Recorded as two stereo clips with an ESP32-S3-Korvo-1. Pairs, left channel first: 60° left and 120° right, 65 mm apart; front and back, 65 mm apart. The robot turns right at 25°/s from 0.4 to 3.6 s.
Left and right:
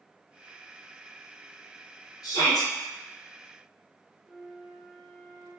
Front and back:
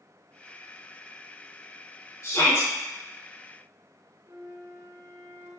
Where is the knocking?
I don't hear knocking.